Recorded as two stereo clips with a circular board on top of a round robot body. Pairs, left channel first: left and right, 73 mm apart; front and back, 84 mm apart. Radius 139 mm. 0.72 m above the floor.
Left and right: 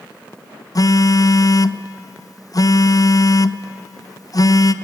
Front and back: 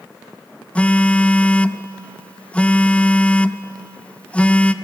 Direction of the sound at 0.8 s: 75° left.